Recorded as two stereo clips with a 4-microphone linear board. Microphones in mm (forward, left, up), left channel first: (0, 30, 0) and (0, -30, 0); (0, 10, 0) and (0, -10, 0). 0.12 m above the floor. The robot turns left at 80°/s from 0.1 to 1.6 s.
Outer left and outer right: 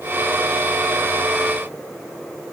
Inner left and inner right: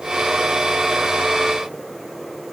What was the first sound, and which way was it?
Only background noise.